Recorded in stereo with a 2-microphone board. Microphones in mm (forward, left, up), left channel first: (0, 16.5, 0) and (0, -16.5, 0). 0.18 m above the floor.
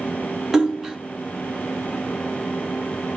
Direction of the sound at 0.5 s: 10° right (ahead or behind).